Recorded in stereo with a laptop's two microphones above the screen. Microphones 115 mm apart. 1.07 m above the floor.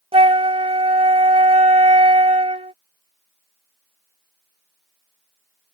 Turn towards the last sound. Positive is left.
turn(degrees=-55)  # may be behind; listen again after turning